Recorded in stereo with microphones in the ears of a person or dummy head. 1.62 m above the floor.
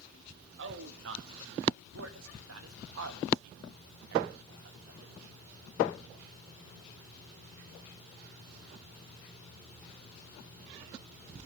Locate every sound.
0.6 s a man speaking: 65° right (ahead or behind), 3 m; by 5.1 s 55° right (ahead or behind), 3 m